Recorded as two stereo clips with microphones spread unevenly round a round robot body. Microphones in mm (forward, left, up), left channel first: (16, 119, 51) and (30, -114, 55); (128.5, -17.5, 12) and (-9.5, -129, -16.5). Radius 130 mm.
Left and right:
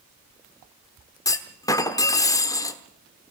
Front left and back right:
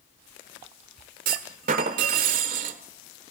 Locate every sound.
1.2 s a clunk: 170° left, 1.1 m